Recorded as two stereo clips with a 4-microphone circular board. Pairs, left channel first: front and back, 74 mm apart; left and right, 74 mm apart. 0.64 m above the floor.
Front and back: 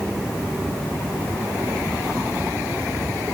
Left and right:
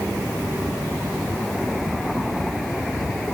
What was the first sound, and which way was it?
Only background noise.